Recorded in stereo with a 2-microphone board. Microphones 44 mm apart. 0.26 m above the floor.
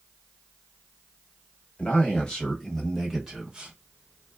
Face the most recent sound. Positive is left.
turn(degrees=-20)  # may be behind; listen again after turning